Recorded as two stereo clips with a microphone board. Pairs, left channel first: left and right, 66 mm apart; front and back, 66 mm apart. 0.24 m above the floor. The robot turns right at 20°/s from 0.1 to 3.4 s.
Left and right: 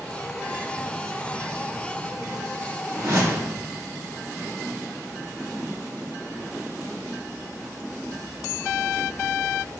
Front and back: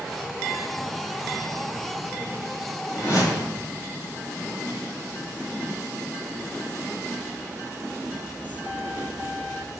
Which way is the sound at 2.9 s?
50° right.